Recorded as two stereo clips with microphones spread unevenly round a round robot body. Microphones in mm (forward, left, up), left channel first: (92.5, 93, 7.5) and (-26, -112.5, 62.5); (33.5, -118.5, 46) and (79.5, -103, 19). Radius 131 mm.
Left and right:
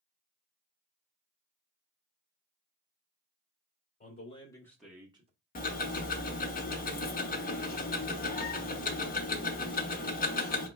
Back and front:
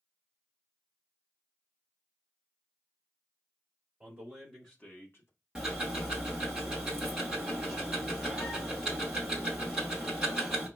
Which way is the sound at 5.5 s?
55° left.